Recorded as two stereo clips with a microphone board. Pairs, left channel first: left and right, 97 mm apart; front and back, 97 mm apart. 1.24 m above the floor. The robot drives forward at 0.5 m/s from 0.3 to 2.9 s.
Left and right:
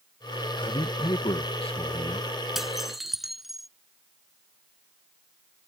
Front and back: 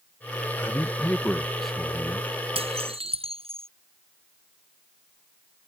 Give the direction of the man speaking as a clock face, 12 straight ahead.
10 o'clock.